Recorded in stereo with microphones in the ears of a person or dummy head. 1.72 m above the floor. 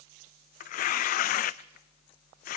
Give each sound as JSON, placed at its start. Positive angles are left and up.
{"t": 0.6, "sound": "tearing paper", "side_deg": 45, "distance_m": 0.6}